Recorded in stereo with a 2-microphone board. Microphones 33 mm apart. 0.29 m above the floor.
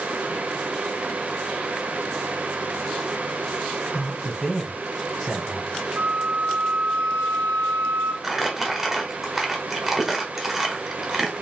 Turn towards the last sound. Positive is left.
turn(degrees=-15)  # may be behind; listen again after turning